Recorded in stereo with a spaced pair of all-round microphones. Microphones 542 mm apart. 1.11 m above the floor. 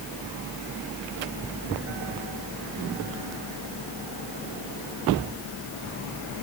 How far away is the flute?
I don't hear a flute.